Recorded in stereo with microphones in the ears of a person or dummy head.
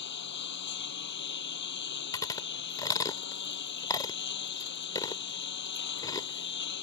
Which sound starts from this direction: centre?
Chewing, at 2.1 s.